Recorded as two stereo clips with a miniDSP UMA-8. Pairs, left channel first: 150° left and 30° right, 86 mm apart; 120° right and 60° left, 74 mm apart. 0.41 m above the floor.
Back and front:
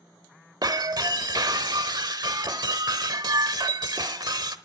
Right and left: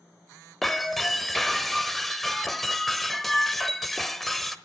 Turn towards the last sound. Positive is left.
turn(degrees=-30)